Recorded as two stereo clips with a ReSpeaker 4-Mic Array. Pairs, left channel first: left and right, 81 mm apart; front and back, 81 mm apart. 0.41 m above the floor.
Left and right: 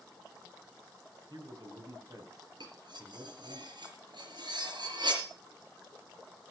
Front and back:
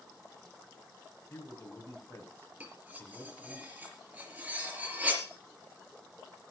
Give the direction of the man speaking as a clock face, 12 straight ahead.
2 o'clock.